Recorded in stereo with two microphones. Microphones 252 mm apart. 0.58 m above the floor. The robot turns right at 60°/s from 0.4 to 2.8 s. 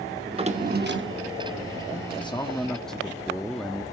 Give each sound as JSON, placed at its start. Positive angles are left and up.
{"t": 0.3, "sound": "a drawer", "azimuth_deg": -155, "distance_m": 0.7}
{"t": 2.1, "sound": "a man speaking", "azimuth_deg": 135, "distance_m": 0.6}